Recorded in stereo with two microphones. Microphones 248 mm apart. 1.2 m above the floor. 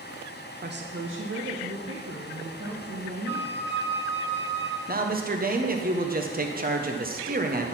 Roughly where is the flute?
Right.